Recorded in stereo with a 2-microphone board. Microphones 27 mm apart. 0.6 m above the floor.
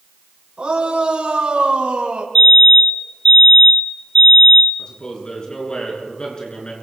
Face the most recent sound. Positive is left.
turn(degrees=35)  # may be behind; listen again after turning